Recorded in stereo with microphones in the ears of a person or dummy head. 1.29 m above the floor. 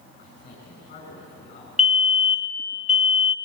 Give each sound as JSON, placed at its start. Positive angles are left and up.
{"t": 0.2, "sound": "a man speaking", "side_deg": 40, "distance_m": 7.0}
{"t": 1.8, "sound": "a fire alarm", "side_deg": 0, "distance_m": 1.3}